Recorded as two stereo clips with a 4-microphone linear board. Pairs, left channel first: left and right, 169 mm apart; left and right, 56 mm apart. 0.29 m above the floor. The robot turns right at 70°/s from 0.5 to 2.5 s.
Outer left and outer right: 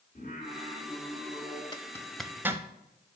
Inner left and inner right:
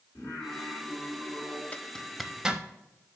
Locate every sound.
0.1 s singing: 125° left, 3.5 m; by 1.6 s 160° right, 3.5 m
1.7 s a zipper: 25° left (ahead or behind), 0.6 m; by 2.6 s 15° right (ahead or behind), 0.6 m